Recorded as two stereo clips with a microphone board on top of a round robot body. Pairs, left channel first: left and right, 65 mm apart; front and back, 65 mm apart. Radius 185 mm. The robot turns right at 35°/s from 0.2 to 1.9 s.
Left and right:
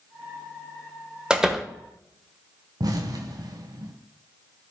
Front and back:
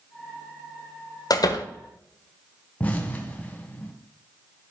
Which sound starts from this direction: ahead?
A door slam, at 1.3 s.